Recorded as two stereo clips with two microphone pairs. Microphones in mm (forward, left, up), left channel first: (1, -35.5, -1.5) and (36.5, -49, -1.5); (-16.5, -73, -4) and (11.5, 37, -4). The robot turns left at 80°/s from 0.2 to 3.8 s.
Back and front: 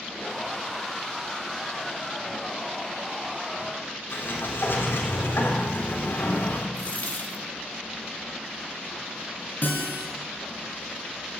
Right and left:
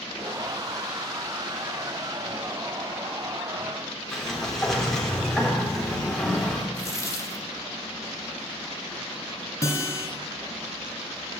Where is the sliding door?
170° left, 3.5 m.